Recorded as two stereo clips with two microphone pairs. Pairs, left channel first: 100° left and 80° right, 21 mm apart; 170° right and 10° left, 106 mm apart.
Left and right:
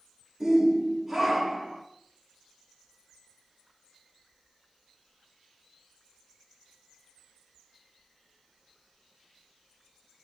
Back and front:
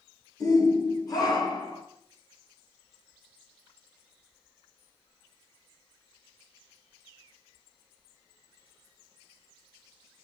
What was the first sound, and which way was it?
A shout, 135° right.